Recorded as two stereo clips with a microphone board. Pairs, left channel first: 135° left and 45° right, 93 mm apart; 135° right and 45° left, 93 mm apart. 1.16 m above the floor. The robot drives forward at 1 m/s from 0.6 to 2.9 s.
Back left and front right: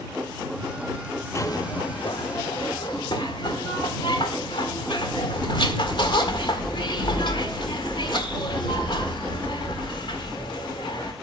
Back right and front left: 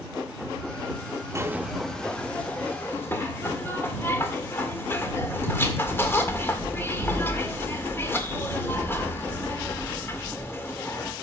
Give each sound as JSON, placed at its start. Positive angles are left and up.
{"t": 1.4, "sound": "a zipper", "azimuth_deg": 90, "distance_m": 0.7}